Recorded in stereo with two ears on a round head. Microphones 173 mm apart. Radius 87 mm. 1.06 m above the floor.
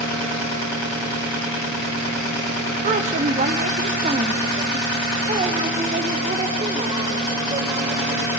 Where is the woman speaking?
40° right (ahead or behind), 1.2 m; by 8.2 s 30° right (ahead or behind), 4.5 m.